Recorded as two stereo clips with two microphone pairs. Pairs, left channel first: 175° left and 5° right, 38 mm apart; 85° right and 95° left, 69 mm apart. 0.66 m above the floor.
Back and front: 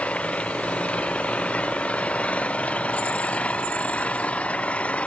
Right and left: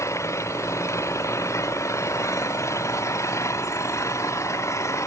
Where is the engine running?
130° right.